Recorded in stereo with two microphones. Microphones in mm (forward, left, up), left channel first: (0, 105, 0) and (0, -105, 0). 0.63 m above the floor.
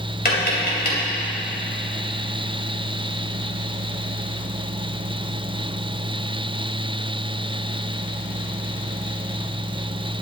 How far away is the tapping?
About 2.5 m.